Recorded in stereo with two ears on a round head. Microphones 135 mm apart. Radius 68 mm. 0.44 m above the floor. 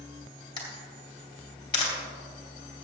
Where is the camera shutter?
30° left (ahead or behind), 2.5 m.